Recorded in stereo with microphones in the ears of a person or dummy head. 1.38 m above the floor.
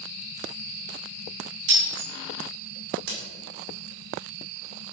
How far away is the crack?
About 2 m.